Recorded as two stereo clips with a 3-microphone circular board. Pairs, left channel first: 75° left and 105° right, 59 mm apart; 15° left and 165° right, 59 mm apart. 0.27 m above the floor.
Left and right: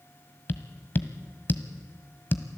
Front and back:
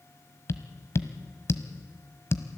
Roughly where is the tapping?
Ahead left.